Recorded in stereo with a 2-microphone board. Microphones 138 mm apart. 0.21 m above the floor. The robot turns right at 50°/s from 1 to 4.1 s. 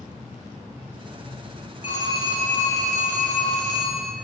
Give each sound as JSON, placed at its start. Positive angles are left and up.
{"t": 1.8, "sound": "a phone ringing", "azimuth_deg": -155, "distance_m": 2.0}